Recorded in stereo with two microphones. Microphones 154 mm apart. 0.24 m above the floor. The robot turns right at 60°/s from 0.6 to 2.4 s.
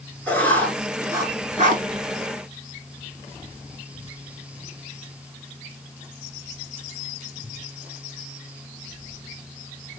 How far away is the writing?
About 0.7 m.